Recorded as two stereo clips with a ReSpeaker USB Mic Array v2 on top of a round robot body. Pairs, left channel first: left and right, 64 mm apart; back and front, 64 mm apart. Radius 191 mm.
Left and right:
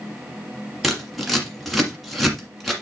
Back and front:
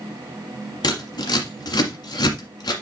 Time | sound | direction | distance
0.8 | scissors | straight behind | 1.6 m